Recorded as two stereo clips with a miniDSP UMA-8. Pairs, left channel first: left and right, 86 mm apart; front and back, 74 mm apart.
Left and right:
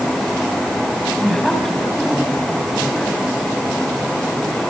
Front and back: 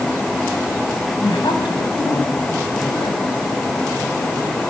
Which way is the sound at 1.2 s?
5° left.